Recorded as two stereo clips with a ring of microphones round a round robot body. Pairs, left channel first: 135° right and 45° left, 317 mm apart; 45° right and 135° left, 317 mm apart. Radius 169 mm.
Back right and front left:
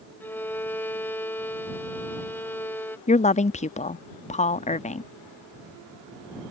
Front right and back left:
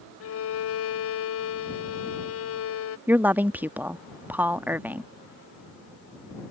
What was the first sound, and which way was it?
A violin, 55° right.